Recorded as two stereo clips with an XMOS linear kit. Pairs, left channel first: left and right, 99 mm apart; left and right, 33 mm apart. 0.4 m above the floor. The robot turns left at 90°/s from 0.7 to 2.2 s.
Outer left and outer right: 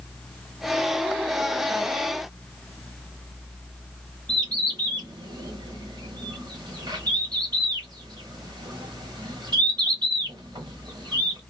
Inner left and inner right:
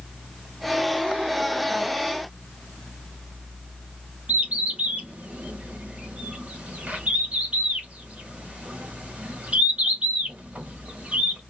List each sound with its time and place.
4.3 s a bird: 45° right (ahead or behind), 1.1 m